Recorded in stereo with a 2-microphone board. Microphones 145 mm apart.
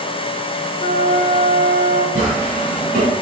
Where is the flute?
50° left (ahead or behind), 1.0 m.